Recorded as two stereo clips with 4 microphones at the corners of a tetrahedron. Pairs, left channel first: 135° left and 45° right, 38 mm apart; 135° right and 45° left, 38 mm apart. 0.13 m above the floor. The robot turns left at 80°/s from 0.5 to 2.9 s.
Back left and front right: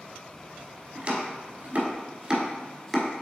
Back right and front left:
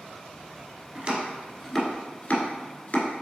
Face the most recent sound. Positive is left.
turn(degrees=-145)